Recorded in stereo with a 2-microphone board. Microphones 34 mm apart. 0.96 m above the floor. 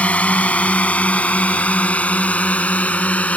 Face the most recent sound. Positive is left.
turn(degrees=45)  # may be behind; listen again after turning